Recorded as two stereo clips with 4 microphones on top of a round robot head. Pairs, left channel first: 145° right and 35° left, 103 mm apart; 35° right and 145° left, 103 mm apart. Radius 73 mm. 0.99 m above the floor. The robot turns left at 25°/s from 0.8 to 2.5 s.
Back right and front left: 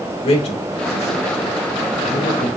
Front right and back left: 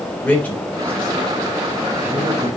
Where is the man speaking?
115° right, 3.5 m; by 2.5 s 155° right, 3.5 m.